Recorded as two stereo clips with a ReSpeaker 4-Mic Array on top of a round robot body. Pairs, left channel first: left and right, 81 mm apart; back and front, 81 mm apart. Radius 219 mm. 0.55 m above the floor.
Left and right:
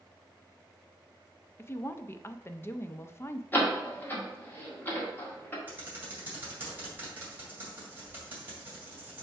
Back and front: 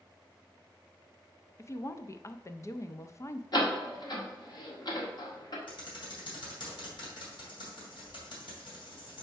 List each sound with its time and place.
1.6 s a woman speaking: 140° left, 0.7 m
3.5 s a door slam: 150° left, 1.8 m
5.7 s typing on a keyboard: 160° right, 2.5 m